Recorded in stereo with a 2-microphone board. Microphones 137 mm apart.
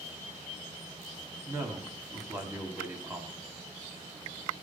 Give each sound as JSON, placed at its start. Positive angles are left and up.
{"t": 1.5, "sound": "a man speaking", "side_deg": -15, "distance_m": 1.5}